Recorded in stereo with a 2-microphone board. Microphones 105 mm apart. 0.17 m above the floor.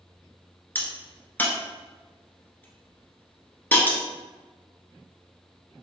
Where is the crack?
20° left (ahead or behind), 0.9 m.